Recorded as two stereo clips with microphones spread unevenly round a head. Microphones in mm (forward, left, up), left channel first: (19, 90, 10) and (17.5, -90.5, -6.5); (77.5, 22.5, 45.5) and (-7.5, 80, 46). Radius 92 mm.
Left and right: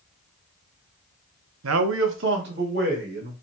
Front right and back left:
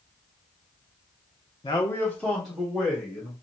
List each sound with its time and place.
1.6 s a man speaking: 90° right, 0.7 m; by 3.3 s 130° right, 2.0 m